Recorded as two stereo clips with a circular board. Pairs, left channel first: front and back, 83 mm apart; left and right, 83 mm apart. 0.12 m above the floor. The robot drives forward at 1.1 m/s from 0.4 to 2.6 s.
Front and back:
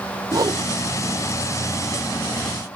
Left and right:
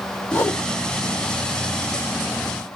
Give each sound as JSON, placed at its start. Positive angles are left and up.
{"t": 0.3, "sound": "a whoosh", "azimuth_deg": 150, "distance_m": 0.8}